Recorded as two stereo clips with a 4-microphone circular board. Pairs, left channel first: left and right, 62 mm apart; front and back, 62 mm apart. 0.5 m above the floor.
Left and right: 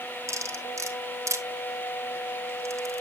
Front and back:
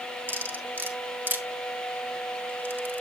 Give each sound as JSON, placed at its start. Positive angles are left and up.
{"t": 0.3, "sound": "cutlery clinking", "azimuth_deg": -125, "distance_m": 1.3}